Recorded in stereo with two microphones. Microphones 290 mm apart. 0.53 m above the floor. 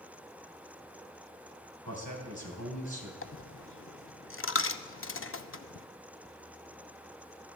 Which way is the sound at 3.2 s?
45° left (ahead or behind).